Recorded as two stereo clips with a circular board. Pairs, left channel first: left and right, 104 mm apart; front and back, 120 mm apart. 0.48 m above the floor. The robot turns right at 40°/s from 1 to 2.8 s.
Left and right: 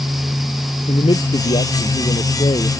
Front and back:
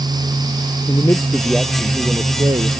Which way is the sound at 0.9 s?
65° left.